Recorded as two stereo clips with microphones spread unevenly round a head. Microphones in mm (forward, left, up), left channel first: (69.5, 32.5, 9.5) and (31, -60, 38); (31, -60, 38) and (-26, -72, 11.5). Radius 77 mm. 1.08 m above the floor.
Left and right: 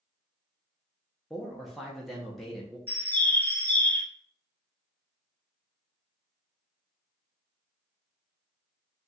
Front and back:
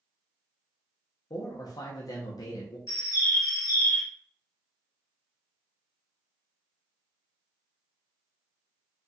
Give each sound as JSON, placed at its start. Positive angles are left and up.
{"t": 1.3, "sound": "a man speaking", "azimuth_deg": -10, "distance_m": 0.9}
{"t": 2.9, "sound": "a bird", "azimuth_deg": -10, "distance_m": 1.4}